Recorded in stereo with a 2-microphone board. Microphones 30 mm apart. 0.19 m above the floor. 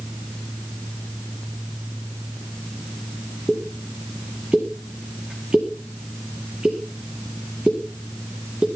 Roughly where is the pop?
Right.